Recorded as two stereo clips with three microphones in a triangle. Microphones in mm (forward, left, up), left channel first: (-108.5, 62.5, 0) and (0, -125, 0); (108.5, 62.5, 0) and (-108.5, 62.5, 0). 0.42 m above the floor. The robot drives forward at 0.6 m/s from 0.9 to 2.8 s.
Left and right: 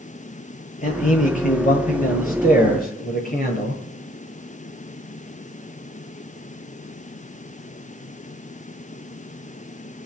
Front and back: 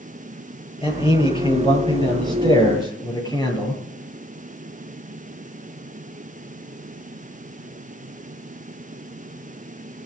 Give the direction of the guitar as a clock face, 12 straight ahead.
No guitar in this recording.